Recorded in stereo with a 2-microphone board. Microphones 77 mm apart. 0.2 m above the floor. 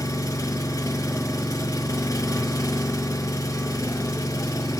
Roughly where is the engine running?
Left.